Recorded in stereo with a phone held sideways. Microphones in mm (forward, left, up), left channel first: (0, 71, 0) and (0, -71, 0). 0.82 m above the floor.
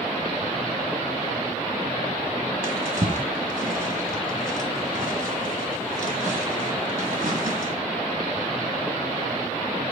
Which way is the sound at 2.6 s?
70° right (ahead or behind).